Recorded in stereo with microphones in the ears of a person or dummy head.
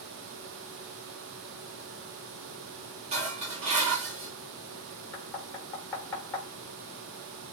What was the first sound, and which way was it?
Dishes clattering, 35° right (ahead or behind).